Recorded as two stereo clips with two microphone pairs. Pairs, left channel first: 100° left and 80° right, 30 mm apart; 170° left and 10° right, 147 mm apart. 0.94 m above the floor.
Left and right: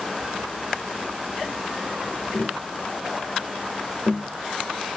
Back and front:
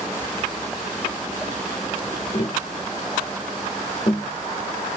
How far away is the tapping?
About 0.7 m.